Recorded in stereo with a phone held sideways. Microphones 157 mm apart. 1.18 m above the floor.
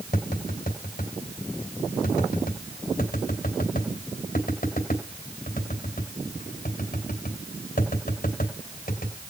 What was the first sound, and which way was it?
Tapping, 75° left (ahead or behind).